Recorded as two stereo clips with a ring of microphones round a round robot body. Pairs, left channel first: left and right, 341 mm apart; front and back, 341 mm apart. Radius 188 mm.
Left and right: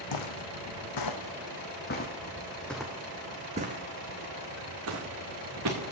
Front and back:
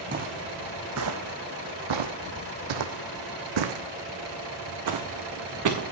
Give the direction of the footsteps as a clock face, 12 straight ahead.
8 o'clock.